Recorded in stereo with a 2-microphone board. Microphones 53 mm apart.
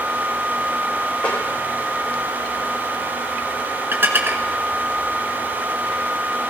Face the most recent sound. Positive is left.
turn(degrees=-45)  # may be behind; listen again after turning